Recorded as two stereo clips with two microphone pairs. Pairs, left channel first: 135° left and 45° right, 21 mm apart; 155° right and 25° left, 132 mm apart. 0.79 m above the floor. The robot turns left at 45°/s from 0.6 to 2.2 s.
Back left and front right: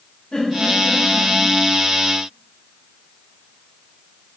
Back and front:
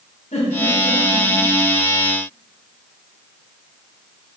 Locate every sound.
0.3 s a giggle: 175° left, 4 m; by 1.3 s 145° left, 4 m